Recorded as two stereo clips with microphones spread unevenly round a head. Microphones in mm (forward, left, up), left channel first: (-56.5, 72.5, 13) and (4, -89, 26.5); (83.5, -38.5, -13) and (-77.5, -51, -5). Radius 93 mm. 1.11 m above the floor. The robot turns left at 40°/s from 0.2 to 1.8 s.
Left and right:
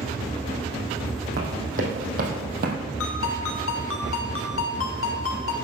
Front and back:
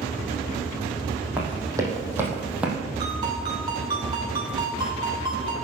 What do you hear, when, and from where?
1.4 s running footsteps: 95° right, 3 m
3.0 s a ringtone: 115° left, 1.9 m